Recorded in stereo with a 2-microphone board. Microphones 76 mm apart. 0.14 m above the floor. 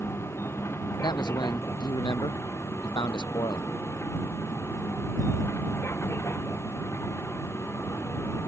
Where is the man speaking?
75° left (ahead or behind).